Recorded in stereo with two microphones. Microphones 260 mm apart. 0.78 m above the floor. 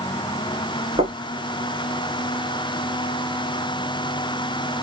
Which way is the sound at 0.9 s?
20° right (ahead or behind).